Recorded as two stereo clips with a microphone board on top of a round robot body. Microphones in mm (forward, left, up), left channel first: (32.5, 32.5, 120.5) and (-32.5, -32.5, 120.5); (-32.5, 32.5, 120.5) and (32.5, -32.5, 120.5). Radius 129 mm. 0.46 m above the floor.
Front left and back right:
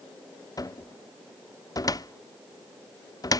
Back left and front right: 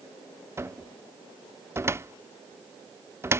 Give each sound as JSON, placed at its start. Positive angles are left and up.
{"t": 0.6, "sound": "a cupboard door", "azimuth_deg": 10}